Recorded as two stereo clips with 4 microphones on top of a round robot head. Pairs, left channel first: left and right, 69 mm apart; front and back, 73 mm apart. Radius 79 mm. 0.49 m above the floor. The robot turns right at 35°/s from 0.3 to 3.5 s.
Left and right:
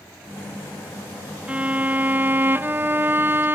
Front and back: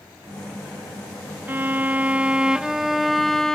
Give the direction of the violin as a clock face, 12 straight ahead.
5 o'clock.